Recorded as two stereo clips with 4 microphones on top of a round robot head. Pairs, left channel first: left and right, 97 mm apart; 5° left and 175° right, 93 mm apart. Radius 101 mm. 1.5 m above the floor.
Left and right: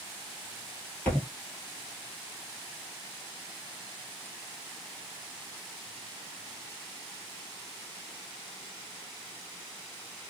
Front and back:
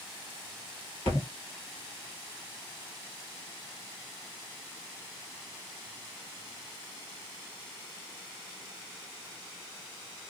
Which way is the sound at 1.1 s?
15° left.